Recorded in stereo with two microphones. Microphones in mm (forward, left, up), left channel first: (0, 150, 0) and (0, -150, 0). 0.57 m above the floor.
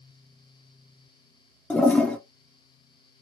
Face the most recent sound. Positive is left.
turn(degrees=5)  # may be behind; listen again after turning